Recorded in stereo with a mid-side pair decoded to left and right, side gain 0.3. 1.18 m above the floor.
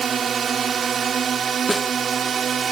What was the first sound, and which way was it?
A drone, 65° right.